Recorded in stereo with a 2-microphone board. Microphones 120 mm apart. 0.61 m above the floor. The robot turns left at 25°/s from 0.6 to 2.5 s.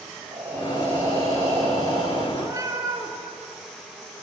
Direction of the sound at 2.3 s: 25° right (ahead or behind).